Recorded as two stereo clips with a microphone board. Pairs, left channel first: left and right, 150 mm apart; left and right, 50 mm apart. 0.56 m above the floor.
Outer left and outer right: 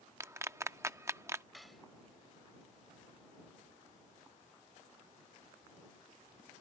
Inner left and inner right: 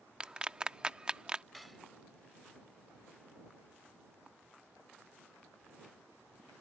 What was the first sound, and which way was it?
A clap, 20° right (ahead or behind).